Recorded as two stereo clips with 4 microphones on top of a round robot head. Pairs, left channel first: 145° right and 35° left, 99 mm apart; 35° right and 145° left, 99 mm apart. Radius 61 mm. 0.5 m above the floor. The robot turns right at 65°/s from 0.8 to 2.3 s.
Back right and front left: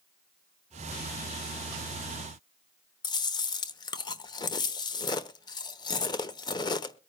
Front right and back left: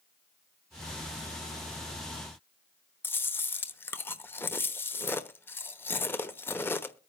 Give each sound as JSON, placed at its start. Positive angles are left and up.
{"t": 3.0, "sound": "chewing", "azimuth_deg": -105, "distance_m": 1.0}